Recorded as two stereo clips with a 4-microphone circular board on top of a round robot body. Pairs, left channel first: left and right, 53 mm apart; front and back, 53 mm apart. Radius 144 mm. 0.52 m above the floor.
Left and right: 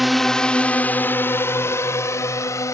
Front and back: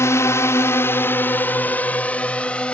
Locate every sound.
0.0 s a drone: straight ahead; by 2.8 s 70° left